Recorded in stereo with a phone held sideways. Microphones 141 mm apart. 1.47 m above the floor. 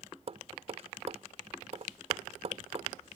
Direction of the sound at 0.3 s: 50° right (ahead or behind).